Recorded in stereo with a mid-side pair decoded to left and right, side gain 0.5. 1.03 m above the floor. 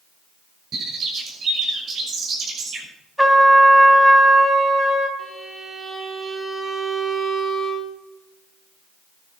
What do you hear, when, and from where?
0.7 s a bird: 55° right, 6 m
3.2 s a trumpet: 5° right, 3 m
5.2 s a violin: 20° right, 3.5 m